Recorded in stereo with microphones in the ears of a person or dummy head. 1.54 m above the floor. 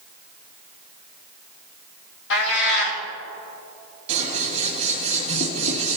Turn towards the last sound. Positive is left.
turn(degrees=-35)  # may be behind; listen again after turning